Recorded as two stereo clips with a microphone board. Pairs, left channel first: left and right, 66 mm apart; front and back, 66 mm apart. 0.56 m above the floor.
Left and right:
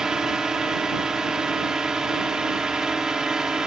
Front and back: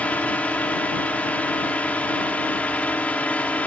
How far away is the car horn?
I don't hear a car horn.